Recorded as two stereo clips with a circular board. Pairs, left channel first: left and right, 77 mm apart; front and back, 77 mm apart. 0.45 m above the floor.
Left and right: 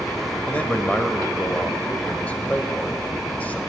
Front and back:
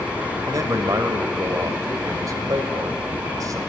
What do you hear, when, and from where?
0.5 s a man speaking: 155° left, 2 m